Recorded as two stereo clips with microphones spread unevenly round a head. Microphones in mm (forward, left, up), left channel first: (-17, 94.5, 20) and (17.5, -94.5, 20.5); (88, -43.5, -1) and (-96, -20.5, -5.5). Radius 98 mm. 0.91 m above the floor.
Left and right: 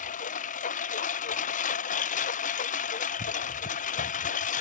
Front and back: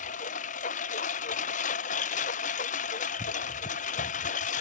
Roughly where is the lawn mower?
Ahead left.